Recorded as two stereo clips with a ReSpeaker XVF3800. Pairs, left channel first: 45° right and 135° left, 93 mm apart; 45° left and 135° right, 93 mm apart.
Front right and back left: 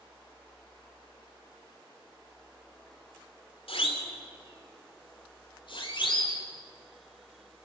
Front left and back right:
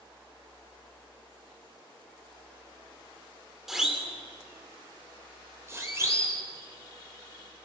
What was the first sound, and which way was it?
A siren, 50° right.